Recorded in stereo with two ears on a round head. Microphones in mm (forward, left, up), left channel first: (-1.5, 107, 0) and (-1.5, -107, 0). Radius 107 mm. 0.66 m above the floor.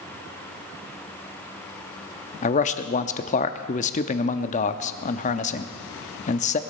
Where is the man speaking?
30° left (ahead or behind), 0.8 m.